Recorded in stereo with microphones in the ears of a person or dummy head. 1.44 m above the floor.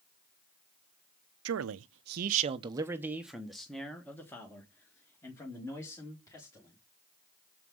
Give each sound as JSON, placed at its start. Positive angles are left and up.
{"t": 1.4, "sound": "a man speaking", "side_deg": -75, "distance_m": 0.6}